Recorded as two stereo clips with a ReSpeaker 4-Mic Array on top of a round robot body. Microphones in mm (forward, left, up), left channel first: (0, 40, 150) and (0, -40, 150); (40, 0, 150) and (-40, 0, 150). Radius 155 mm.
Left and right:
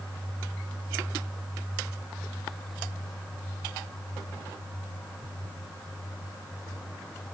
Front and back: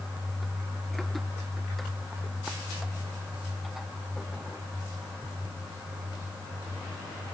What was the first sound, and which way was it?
Only background noise.